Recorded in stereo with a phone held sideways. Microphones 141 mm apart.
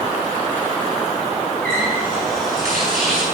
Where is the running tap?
85° right, 6.5 m.